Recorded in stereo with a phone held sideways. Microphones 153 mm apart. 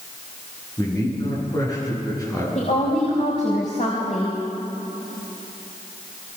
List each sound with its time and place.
0.8 s a man speaking: 25° left (ahead or behind), 10 m
2.5 s a woman speaking: 55° left (ahead or behind), 4 m